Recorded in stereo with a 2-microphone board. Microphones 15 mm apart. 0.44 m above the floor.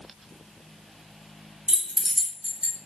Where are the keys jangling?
45° right (ahead or behind), 1.0 m.